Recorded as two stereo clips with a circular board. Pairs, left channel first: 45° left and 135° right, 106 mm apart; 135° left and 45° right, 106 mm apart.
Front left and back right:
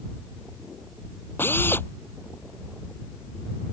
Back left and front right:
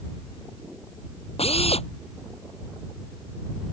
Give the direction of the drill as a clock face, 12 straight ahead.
8 o'clock.